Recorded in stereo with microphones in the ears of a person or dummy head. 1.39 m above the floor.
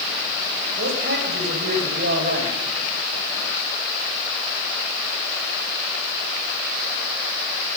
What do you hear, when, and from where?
0.8 s a man speaking: 70° right (ahead or behind), 8 m; by 2.6 s 75° right (ahead or behind), 7 m